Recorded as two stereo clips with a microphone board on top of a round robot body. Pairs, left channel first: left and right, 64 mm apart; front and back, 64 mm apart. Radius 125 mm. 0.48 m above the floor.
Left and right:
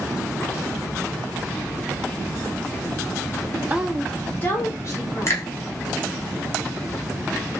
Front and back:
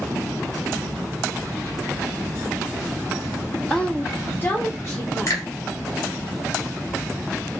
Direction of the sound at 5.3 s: 45° left.